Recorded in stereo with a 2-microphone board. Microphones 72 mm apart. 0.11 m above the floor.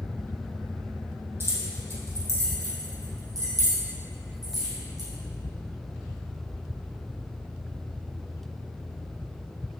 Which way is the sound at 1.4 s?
35° right (ahead or behind).